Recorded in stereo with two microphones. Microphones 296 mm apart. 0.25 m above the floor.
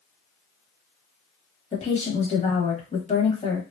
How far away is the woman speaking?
About 1.2 m.